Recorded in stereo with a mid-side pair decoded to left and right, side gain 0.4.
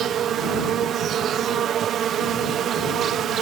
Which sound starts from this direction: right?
An insect, at 0.0 s.